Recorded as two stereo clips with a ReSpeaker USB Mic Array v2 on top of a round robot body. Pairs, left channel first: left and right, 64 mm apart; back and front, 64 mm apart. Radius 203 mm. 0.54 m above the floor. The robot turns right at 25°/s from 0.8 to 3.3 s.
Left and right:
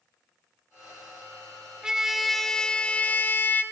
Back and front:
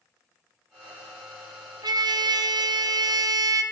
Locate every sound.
1.8 s a trumpet: 10° right, 0.9 m; by 3.6 s 25° left, 0.9 m